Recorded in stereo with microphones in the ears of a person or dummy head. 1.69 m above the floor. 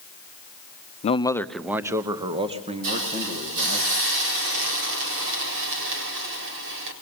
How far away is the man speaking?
About 0.7 m.